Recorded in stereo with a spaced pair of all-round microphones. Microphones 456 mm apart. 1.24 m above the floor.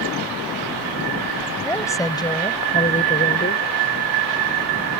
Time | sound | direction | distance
1.6 | a woman speaking | 5° left (ahead or behind) | ?